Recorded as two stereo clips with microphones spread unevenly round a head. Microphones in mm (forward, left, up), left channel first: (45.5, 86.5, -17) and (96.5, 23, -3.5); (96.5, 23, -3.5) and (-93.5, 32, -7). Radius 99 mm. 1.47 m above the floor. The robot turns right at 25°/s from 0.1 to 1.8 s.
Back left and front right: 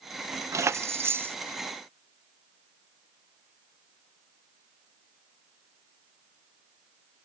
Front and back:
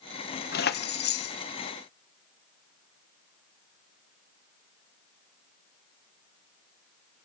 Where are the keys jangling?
20° right, 1.0 m; by 1.4 s straight ahead, 1.0 m.